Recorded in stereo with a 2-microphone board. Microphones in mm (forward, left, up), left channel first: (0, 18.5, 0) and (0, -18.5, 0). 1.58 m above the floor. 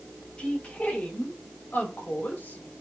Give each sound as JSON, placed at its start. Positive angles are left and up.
{"t": 0.4, "sound": "a woman speaking", "side_deg": 40, "distance_m": 2.0}